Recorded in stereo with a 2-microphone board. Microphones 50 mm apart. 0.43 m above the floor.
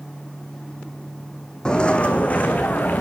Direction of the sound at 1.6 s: 15° left (ahead or behind).